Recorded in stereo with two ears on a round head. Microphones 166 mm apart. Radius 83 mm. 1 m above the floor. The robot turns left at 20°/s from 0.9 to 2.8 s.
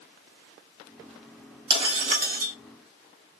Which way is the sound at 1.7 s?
30° right (ahead or behind).